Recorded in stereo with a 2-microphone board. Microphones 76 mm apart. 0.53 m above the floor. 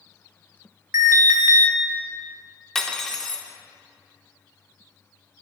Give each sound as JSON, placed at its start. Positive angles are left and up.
{"t": 0.9, "sound": "an alarm", "side_deg": -35, "distance_m": 1.2}
{"t": 2.8, "sound": "cutlery clinking", "side_deg": 5, "distance_m": 0.7}